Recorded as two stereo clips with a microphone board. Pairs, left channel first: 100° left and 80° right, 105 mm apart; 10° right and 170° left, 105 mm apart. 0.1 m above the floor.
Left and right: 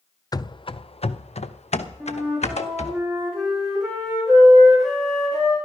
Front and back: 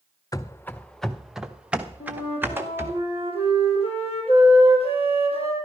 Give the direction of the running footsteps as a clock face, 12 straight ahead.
11 o'clock.